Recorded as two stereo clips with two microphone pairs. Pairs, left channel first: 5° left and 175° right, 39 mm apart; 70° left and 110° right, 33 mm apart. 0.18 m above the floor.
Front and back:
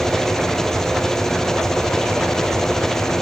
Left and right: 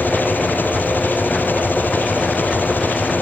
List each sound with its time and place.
0.0 s an engine running: 85° left